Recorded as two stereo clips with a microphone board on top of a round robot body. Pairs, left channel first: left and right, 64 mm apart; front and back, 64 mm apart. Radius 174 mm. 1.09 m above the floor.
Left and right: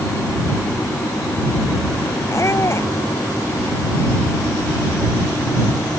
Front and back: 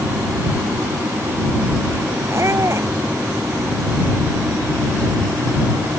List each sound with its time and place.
2.3 s a squeak: 135° left